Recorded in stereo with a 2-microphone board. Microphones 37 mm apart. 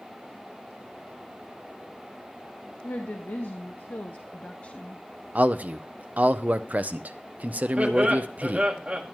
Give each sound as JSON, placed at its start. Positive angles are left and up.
{"t": 2.8, "sound": "a woman speaking", "side_deg": 75, "distance_m": 1.2}
{"t": 5.3, "sound": "a man speaking", "side_deg": -45, "distance_m": 0.6}
{"t": 7.8, "sound": "laughter", "side_deg": -25, "distance_m": 1.8}